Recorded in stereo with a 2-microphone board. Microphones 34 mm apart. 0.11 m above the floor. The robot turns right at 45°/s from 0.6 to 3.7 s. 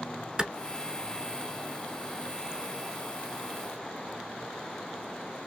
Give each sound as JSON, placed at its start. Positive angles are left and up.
{"t": 0.4, "sound": "a clap", "side_deg": -20, "distance_m": 0.9}